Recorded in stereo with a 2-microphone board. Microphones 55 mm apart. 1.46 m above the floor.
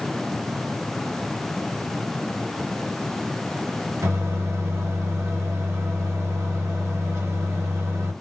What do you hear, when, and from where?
4.0 s a microwave: 60° right (ahead or behind), 1.9 m